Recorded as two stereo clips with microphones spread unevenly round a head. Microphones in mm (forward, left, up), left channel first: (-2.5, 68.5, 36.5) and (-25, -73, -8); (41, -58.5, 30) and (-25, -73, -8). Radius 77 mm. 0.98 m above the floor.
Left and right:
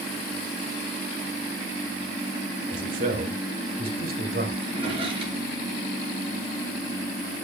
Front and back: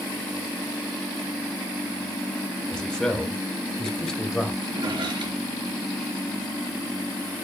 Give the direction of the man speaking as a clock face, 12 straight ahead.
2 o'clock.